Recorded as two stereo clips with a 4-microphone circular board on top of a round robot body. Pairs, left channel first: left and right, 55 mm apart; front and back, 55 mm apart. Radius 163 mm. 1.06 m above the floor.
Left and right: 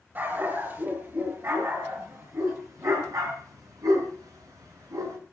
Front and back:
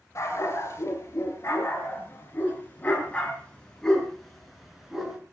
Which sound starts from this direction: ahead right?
A dog barking, at 0.1 s.